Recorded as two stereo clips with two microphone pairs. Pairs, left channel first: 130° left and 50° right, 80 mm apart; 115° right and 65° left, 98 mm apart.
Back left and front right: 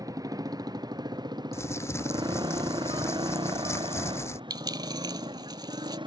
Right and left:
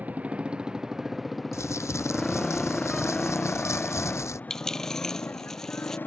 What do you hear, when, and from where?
0.0 s a motorcycle: 10° right; by 6.1 s 45° right
1.5 s crumpling: 175° right
4.5 s a dropped coin: 30° right